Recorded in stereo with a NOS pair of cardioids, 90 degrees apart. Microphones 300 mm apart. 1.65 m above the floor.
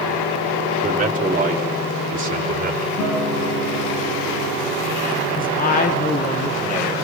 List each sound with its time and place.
0.8 s a man speaking: 25° right, 3.5 m; by 2.9 s 30° right, 4.5 m
3.0 s a guitar: 70° left, 7.5 m
5.4 s a man speaking: 30° left, 1.7 m